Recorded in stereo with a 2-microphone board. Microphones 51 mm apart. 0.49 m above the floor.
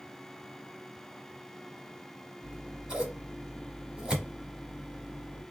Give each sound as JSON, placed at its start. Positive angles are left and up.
{"t": 2.4, "sound": "scissors", "side_deg": -15, "distance_m": 1.0}